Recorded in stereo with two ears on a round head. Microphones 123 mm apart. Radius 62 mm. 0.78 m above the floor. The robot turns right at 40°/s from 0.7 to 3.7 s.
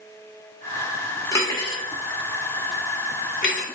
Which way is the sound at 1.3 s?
20° left (ahead or behind).